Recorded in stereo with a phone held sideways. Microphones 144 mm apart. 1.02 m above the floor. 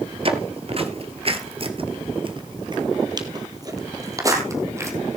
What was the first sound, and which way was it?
Footsteps, 45° right (ahead or behind).